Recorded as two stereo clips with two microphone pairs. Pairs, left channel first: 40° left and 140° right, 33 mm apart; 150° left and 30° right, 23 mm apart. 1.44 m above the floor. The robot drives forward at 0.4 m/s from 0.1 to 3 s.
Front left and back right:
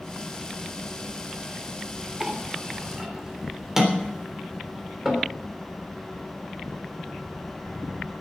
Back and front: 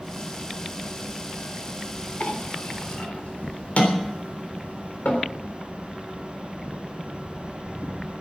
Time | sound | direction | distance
2.2 | a clink | 135° left | 3 m